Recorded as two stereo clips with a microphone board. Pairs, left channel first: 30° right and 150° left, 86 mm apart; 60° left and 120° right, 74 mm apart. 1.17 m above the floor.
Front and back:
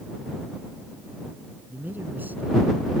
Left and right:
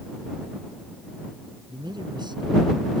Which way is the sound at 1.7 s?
140° right.